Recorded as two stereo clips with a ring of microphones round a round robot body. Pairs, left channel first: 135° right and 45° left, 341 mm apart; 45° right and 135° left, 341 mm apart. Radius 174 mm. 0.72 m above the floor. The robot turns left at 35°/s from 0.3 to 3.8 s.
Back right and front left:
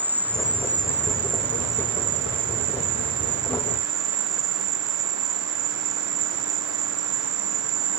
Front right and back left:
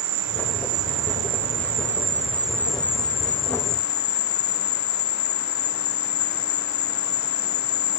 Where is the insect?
130° left; by 8.0 s 10° left.